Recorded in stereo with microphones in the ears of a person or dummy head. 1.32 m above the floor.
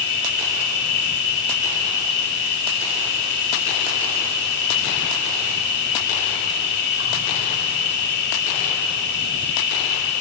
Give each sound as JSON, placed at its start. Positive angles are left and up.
{"t": 0.0, "sound": "an insect", "side_deg": 60, "distance_m": 2.0}